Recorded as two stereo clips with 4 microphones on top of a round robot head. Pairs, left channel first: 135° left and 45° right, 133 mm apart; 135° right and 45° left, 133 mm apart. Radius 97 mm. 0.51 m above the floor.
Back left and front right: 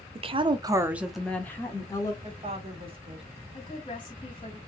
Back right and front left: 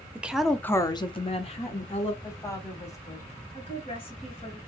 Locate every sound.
0.1 s a woman speaking: 30° right, 0.9 m; by 2.1 s 165° right, 1.4 m
2.2 s a woman speaking: 75° right, 1.8 m
3.5 s a woman speaking: 175° right, 2.5 m